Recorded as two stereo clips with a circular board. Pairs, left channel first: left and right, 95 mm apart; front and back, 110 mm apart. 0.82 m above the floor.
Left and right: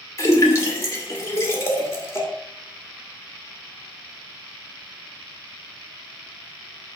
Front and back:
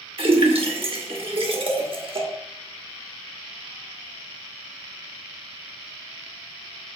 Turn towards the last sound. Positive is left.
turn(degrees=150)